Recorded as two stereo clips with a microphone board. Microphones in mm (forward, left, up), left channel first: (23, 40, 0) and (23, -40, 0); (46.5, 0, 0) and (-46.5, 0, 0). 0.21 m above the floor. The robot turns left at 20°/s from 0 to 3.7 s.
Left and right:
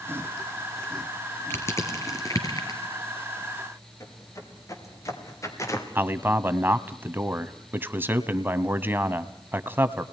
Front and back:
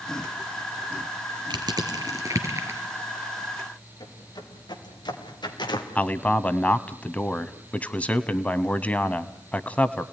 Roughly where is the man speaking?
Ahead right.